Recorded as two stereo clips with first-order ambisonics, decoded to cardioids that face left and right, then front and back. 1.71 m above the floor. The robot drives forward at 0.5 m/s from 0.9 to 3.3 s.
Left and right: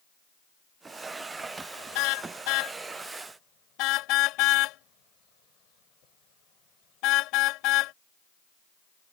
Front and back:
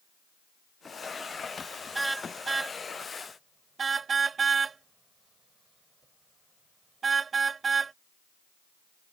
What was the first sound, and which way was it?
A car horn, 100° left.